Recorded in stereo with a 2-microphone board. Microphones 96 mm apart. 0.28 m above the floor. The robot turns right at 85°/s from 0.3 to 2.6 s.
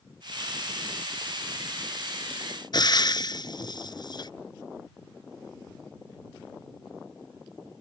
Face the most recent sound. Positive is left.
turn(degrees=50)  # may be behind; listen again after turning